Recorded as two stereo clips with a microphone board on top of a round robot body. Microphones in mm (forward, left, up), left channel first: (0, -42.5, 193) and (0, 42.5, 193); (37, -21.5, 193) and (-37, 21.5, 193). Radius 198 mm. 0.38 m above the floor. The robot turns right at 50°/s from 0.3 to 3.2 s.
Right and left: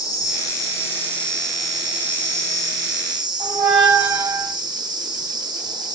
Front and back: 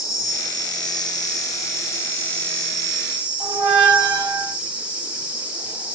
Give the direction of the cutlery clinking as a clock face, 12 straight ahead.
No cutlery clinking in this recording.